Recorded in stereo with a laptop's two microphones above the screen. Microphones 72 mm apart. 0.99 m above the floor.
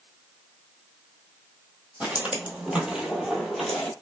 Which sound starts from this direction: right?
Footsteps, at 2.0 s.